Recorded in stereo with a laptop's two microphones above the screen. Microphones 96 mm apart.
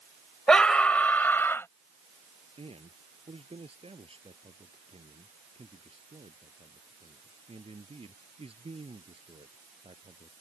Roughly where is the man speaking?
Right.